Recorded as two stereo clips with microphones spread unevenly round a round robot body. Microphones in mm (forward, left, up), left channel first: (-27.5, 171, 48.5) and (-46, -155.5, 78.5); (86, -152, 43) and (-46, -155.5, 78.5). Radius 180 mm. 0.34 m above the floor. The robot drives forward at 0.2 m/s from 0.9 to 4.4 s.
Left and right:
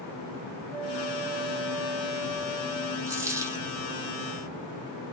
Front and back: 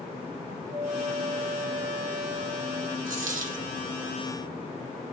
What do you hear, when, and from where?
0.7 s a flute: 170° right, 1.7 m; by 3.0 s 175° right, 2.0 m
3.1 s a dropped coin: 175° right, 1.5 m